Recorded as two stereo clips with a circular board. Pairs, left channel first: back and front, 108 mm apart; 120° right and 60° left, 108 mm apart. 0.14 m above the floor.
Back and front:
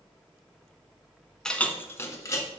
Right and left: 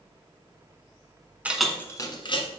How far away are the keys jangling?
About 0.8 m.